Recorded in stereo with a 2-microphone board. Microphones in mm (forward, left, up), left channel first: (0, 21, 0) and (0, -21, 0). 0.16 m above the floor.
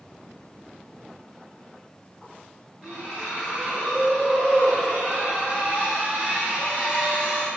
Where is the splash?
30° right (ahead or behind), 1.7 m.